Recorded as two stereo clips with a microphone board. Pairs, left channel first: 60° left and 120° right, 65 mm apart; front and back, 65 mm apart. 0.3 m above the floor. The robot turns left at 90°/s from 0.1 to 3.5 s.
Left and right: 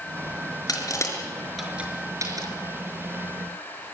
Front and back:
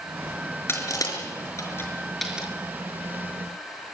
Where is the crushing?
50° left, 5.5 m; by 2.5 s 110° right, 5.5 m.